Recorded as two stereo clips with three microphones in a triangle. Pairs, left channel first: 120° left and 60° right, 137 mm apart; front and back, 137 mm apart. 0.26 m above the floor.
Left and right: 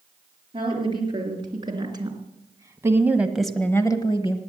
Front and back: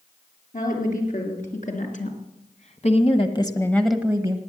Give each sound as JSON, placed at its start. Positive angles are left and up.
{"t": 0.5, "sound": "a woman speaking", "azimuth_deg": -10, "distance_m": 4.5}